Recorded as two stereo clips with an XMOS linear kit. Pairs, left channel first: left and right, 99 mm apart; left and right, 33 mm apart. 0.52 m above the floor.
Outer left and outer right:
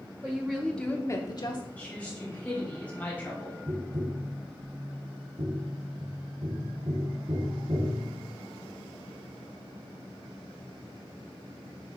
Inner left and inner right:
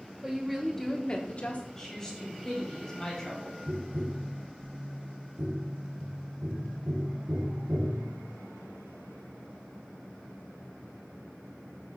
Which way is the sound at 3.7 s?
85° right.